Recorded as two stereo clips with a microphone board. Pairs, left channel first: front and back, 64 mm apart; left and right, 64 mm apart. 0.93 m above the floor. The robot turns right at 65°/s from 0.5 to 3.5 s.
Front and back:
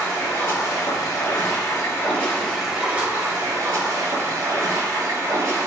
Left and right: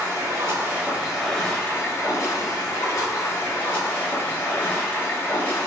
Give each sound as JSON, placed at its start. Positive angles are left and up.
{"t": 0.0, "sound": "running water", "azimuth_deg": -45, "distance_m": 1.2}